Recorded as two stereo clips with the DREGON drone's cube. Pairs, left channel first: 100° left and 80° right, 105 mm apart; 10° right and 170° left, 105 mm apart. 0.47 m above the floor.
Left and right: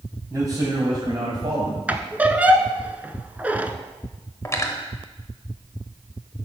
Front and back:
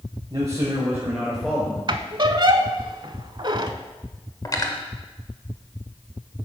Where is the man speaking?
140° right, 2 m; by 1.8 s 85° right, 1.8 m.